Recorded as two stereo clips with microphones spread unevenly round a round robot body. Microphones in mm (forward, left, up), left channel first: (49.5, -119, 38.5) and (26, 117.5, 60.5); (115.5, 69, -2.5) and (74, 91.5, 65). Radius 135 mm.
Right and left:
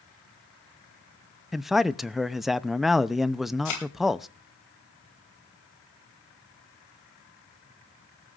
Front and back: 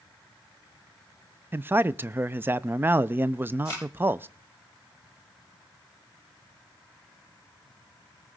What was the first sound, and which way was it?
A man speaking, straight ahead.